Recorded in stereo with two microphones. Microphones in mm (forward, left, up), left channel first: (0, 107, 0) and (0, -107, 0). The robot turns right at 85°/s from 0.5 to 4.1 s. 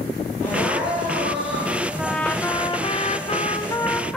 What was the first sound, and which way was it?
Crying, 170° left.